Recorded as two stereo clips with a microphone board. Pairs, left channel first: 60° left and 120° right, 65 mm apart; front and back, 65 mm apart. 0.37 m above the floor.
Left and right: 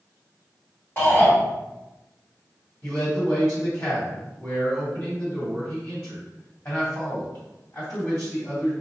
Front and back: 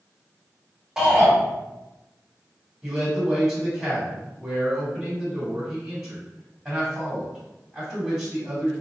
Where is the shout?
100° left, 1.7 m.